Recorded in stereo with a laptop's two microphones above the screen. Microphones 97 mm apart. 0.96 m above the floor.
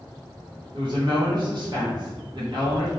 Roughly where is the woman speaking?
Right.